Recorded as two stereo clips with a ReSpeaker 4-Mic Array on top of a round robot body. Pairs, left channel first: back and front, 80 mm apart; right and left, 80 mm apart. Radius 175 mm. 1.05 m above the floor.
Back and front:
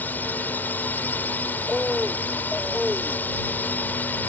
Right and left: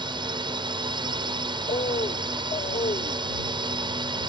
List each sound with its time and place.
0.0 s a drone: 110° left
1.7 s a bird: 95° right